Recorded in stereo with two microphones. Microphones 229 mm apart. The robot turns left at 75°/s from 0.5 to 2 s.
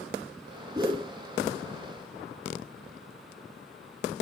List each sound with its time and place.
0.8 s a whoosh: 15° right (ahead or behind), 0.7 m; by 1.1 s 25° right (ahead or behind), 0.7 m